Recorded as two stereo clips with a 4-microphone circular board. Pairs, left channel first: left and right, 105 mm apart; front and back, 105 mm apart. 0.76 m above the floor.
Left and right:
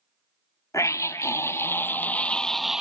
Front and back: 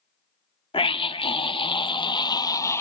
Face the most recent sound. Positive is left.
turn(degrees=-15)